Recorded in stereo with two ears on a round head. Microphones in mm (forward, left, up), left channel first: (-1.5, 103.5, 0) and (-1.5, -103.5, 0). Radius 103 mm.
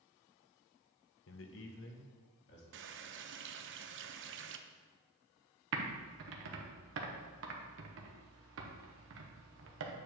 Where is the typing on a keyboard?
60° right (ahead or behind), 1.2 m.